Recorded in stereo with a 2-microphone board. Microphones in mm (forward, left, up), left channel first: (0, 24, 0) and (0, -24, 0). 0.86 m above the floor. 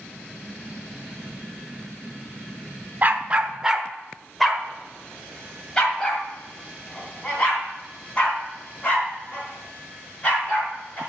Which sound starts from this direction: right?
A dog barking, at 3.0 s.